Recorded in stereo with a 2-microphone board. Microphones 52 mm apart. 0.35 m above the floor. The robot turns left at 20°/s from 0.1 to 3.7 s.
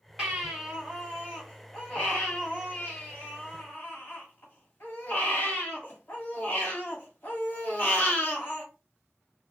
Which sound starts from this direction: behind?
A baby crying, at 0.2 s.